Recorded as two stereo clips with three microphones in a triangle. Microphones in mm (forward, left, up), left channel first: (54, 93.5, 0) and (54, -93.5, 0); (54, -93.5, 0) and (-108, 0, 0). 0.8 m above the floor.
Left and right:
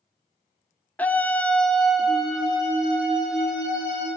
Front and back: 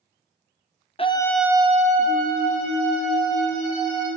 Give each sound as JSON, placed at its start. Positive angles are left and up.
{"t": 1.0, "sound": "a scream", "azimuth_deg": 10, "distance_m": 0.7}